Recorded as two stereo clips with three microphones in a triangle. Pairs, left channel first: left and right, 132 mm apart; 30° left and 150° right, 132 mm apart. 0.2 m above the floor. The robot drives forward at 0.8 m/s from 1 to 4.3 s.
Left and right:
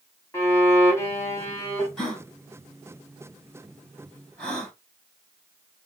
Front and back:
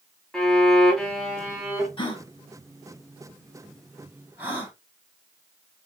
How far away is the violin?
About 1.5 m.